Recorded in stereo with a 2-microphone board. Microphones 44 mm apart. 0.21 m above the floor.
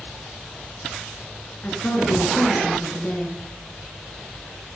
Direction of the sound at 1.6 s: 40° left (ahead or behind).